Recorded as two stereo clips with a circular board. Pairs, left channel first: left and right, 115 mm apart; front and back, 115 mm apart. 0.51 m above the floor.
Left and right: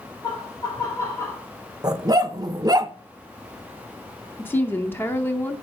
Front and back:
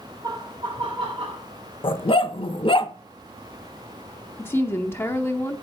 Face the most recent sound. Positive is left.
turn(degrees=45)